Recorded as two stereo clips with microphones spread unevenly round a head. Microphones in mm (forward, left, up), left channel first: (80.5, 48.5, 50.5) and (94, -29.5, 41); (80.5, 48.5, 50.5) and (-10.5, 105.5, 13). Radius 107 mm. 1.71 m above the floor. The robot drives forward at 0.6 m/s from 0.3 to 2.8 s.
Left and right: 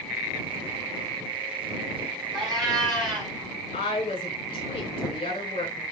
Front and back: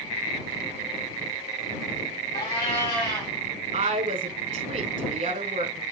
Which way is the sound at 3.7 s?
140° left.